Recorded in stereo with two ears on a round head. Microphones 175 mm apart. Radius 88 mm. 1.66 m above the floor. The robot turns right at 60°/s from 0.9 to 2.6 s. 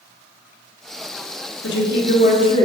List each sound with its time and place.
1.6 s a woman speaking: 105° left, 1.4 m; by 2.7 s 160° left, 1.4 m